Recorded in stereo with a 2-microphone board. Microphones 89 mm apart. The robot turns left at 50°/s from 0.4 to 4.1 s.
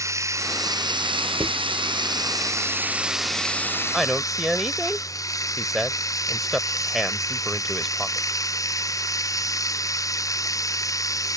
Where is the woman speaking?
Centre (ahead or behind); by 8.4 s 5° right (ahead or behind).